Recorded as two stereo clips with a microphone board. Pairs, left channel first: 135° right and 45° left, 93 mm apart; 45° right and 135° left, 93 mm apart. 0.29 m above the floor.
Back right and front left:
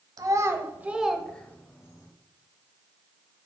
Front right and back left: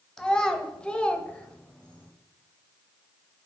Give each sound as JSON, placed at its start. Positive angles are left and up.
{"t": 0.2, "sound": "a child speaking", "azimuth_deg": 35, "distance_m": 0.9}